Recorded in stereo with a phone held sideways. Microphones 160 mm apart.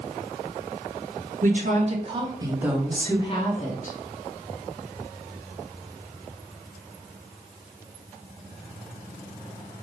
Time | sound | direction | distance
1.4 | a woman speaking | 55° right (ahead or behind) | 1.1 m